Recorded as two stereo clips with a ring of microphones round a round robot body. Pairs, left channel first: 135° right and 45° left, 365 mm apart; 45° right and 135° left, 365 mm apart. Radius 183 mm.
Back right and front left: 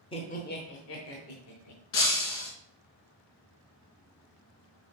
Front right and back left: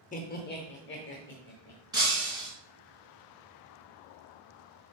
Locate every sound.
0.1 s laughter: 80° right, 0.8 m; by 1.8 s 100° right, 1.5 m
1.9 s breaking glass: 145° right, 3 m